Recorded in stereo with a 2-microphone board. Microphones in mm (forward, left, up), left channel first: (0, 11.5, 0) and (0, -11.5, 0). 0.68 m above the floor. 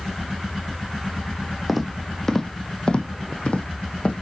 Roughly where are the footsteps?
Centre.